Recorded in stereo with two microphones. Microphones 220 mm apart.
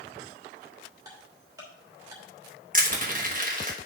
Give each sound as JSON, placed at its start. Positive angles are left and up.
{"t": 1.1, "sound": "ticking", "side_deg": -15, "distance_m": 3.0}
{"t": 2.7, "sound": "crushing", "side_deg": -40, "distance_m": 1.3}